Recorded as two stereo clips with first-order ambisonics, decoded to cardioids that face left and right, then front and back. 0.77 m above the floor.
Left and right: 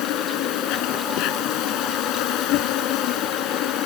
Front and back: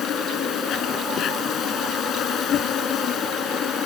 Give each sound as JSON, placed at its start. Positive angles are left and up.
{"t": 0.0, "sound": "an insect", "azimuth_deg": 55}